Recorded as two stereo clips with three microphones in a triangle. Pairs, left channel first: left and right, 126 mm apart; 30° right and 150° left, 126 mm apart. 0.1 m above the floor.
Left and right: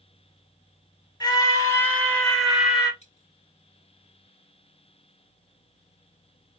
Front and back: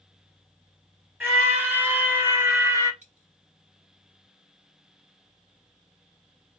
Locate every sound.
1.2 s a scream: 90° left, 1.6 m; by 2.9 s 160° right, 1.6 m
3.0 s a dropped coin: 125° left, 2.5 m